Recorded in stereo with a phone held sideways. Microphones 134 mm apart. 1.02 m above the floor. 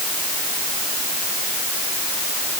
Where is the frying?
No frying in this recording.